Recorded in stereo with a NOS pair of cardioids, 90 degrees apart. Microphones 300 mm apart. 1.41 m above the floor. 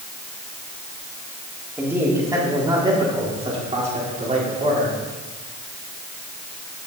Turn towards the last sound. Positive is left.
turn(degrees=-30)